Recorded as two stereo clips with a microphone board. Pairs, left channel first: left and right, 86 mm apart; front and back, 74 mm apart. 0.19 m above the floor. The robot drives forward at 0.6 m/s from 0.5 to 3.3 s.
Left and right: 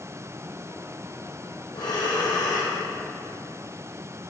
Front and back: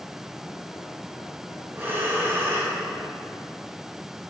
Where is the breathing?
115° left, 7 m; by 2.8 s 120° left, 7 m.